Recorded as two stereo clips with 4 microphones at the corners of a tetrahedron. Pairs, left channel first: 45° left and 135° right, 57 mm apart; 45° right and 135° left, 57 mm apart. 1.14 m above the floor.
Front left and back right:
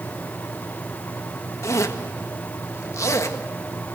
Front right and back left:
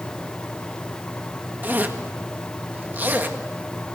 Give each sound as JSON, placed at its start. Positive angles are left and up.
{"t": 1.6, "sound": "a zipper", "azimuth_deg": 75, "distance_m": 1.6}